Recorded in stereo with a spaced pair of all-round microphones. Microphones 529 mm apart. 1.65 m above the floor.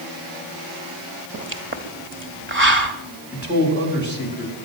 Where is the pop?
25° right (ahead or behind), 1.6 m.